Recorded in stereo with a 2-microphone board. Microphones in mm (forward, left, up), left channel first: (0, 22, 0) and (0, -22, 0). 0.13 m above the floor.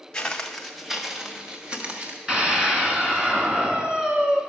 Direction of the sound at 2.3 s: 20° right (ahead or behind).